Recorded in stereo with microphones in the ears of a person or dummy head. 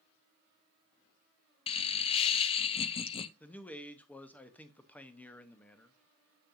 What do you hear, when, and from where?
1.7 s laughter: 25° left (ahead or behind), 0.6 m
3.4 s a man speaking: 10° left (ahead or behind), 0.8 m